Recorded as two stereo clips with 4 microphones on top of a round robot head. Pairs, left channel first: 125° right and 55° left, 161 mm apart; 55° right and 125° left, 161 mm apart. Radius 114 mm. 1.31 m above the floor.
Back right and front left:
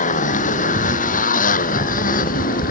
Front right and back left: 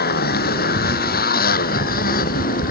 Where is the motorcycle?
85° right; by 2.7 s 90° right.